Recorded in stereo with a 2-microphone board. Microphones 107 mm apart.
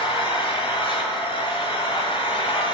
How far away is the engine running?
About 1.3 m.